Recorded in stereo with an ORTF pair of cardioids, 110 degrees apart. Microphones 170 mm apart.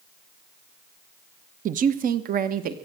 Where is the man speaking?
50° right, 0.8 m; by 2.8 s 60° right, 1.5 m.